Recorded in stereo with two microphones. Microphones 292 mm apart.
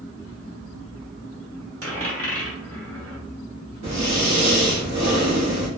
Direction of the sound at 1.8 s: 50° right (ahead or behind).